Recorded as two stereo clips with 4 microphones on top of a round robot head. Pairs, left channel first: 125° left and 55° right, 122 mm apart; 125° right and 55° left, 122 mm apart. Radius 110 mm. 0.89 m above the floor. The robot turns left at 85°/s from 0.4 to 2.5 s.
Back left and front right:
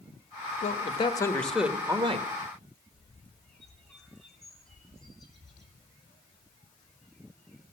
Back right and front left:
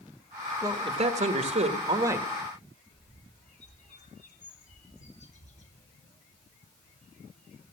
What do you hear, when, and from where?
0.6 s a man speaking: 115° left, 1.7 m; by 2.3 s 25° right, 1.7 m
2.9 s a bird: 145° right, 3 m